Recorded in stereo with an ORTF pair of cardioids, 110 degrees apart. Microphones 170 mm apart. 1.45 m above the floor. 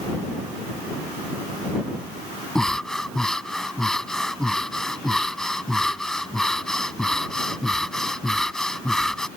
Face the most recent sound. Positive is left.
turn(degrees=5)